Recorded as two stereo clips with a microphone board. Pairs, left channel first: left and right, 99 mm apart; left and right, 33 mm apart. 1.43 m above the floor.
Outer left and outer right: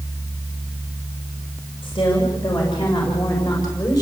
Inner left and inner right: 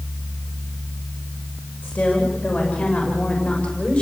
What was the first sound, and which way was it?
A woman speaking, 60° left (ahead or behind).